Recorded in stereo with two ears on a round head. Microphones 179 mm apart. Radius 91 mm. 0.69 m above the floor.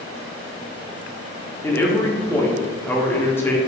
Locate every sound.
1.6 s a man speaking: 10° left (ahead or behind), 0.6 m